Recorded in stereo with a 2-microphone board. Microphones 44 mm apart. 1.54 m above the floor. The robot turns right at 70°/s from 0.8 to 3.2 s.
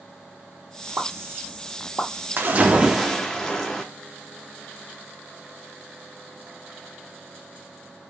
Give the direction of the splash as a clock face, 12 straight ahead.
2 o'clock.